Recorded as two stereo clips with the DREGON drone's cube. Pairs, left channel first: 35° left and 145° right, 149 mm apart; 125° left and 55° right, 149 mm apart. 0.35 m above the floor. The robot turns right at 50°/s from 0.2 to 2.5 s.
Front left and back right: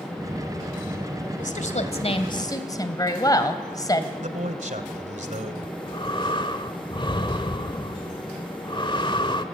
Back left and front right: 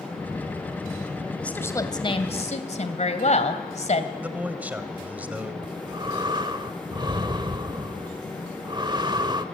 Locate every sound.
1.4 s a woman speaking: 40° left, 2 m; by 4.1 s 95° left, 2 m
4.2 s a man speaking: 135° right, 2 m
5.6 s breathing: 10° right, 1.2 m